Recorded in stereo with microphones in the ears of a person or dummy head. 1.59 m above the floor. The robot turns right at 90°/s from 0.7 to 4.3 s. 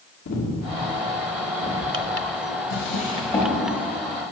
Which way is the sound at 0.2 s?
65° left (ahead or behind).